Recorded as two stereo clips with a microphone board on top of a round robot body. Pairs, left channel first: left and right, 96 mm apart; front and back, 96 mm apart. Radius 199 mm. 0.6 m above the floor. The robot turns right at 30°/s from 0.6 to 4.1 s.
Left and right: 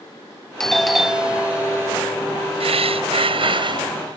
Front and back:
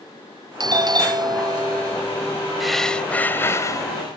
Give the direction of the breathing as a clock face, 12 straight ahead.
3 o'clock.